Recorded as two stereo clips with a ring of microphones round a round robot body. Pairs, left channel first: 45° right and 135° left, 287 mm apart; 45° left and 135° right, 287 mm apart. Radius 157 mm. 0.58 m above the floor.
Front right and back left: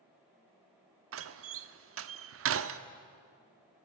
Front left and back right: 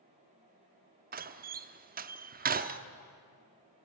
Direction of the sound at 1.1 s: 170° left.